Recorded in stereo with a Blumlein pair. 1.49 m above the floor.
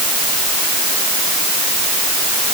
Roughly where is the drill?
I don't hear a drill.